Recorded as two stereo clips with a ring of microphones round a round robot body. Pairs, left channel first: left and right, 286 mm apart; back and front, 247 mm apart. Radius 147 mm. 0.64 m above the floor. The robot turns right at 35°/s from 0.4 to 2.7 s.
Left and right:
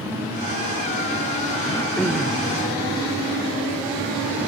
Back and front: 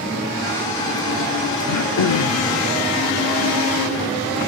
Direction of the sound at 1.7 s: 165° left.